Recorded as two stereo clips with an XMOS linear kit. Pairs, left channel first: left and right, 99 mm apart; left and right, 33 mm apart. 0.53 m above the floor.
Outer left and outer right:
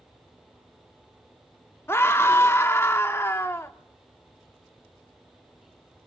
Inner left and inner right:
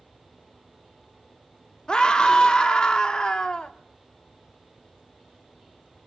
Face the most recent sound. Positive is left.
turn(degrees=25)  # may be behind; listen again after turning